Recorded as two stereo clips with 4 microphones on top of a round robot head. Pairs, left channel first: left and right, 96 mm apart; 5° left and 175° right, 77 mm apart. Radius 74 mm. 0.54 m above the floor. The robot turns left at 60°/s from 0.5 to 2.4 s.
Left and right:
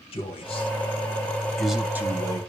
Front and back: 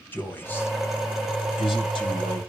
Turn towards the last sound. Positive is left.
turn(degrees=-45)